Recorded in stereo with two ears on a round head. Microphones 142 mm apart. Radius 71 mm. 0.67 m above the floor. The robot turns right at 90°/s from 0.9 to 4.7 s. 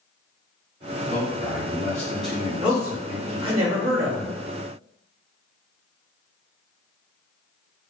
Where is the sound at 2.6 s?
Straight behind, 0.8 m; by 4.3 s 20° right, 0.8 m.